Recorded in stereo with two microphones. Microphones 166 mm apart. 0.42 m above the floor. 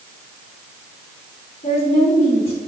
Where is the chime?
I don't hear a chime.